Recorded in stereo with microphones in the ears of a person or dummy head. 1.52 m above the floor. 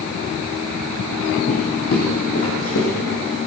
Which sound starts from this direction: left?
Footsteps, at 1.5 s.